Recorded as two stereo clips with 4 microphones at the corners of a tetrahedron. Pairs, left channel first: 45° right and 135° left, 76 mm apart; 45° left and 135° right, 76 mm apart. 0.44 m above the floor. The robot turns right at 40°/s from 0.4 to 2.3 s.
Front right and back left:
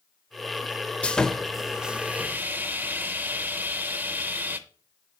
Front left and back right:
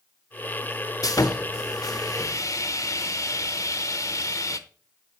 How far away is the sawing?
About 0.7 m.